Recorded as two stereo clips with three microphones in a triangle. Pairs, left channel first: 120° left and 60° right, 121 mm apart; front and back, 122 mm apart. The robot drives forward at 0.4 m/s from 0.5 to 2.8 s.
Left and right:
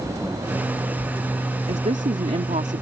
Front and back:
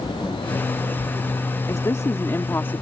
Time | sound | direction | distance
1.7 | a woman speaking | 60° right | ?